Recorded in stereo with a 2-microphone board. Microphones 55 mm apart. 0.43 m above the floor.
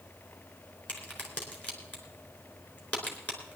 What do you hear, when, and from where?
0.9 s a crack: 30° left (ahead or behind), 4 m